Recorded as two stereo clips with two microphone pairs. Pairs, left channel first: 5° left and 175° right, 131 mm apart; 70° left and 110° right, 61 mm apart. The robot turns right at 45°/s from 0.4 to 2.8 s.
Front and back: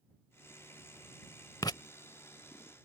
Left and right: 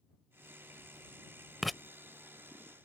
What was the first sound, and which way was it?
Writing, 25° right.